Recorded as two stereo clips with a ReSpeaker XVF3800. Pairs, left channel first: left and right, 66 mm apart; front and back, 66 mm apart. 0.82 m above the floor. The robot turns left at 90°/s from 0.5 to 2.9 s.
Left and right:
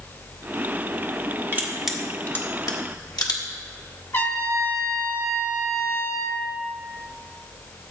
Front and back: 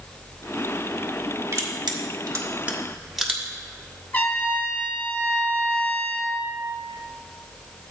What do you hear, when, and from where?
1.5 s crushing: 140° right, 1.4 m; by 3.4 s 95° left, 1.4 m
4.1 s a trumpet: 55° left, 1.3 m